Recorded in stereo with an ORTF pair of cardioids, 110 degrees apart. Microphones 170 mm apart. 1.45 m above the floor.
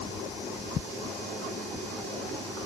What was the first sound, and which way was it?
Only background noise.